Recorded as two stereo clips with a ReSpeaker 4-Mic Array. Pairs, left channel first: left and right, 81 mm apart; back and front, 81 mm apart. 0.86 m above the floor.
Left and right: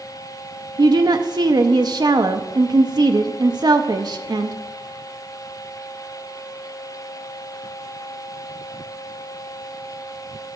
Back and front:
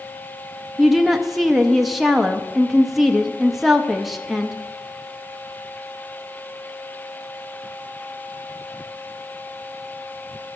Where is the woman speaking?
85° right, 0.5 m.